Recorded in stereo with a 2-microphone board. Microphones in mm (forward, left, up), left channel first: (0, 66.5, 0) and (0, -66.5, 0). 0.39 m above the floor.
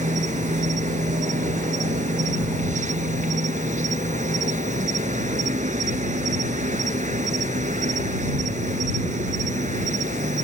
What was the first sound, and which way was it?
An insect, 65° right (ahead or behind).